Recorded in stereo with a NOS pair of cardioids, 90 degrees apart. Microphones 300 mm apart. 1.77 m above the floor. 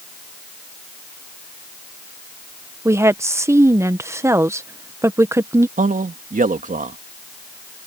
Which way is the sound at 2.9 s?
10° right.